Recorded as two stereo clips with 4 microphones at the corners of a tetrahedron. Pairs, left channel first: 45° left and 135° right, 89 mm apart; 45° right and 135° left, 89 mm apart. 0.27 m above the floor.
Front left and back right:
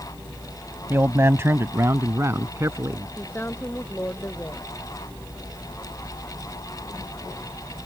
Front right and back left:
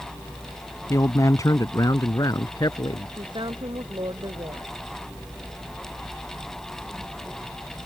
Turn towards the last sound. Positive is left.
turn(degrees=110)